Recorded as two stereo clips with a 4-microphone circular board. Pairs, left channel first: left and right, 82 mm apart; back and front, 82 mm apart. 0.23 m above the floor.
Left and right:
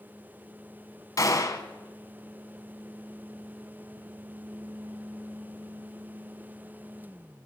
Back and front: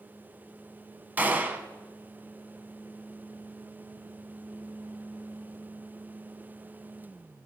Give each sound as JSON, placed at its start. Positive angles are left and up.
{"t": 1.2, "sound": "a gunshot", "azimuth_deg": 60, "distance_m": 1.3}